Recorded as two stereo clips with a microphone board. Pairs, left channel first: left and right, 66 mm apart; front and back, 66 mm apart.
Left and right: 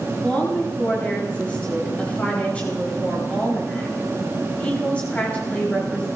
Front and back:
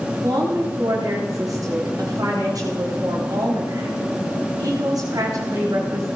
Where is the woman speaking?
160° left, 10 m.